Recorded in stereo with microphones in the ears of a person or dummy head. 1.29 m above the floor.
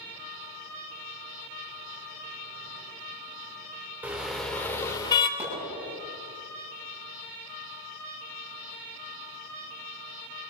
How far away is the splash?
About 10 m.